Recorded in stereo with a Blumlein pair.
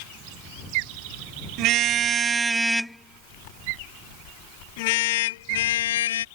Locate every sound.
1.6 s a car horn: 40° right; by 6.2 s 60° left